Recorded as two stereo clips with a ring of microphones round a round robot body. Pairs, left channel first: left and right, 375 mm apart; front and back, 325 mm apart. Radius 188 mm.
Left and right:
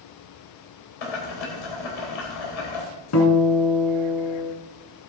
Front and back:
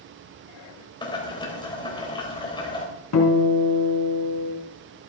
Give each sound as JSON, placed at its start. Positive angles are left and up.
{"t": 1.0, "sound": "boiling", "azimuth_deg": 75, "distance_m": 3.5}
{"t": 3.1, "sound": "a guitar", "azimuth_deg": 35, "distance_m": 3.0}